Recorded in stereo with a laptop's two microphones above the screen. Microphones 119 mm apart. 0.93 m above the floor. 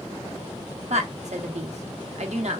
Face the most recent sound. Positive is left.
turn(degrees=-70)  # may be behind; listen again after turning